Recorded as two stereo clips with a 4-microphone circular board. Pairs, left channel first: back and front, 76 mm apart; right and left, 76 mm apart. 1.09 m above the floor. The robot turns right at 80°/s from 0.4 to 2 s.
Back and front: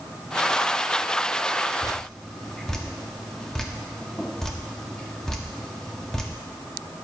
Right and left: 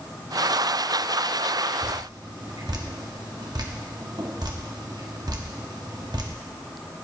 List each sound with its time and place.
1.8 s dripping: 80° left, 0.8 m; by 6.3 s 100° left, 0.8 m